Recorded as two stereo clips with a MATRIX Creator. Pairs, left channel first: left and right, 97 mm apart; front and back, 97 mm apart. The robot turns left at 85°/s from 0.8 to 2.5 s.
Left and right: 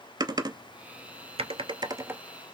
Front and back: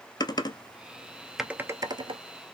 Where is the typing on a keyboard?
45° right, 0.6 m; by 2.2 s 165° right, 0.6 m.